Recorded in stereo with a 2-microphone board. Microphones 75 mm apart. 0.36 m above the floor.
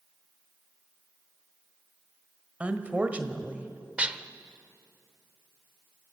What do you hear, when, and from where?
2.6 s a woman speaking: 20° right (ahead or behind), 1.5 m
4.0 s dishes clattering: 15° right (ahead or behind), 0.6 m